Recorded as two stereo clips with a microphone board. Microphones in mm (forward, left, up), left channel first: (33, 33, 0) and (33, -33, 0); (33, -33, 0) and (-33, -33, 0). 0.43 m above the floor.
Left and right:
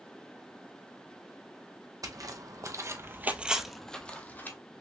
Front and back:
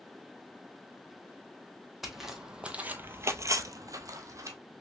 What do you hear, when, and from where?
2.0 s footsteps: 90° right, 1.1 m; by 4.6 s 150° left, 1.0 m